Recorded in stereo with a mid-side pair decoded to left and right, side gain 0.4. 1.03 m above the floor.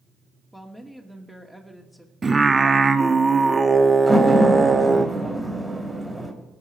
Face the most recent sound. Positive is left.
turn(degrees=-10)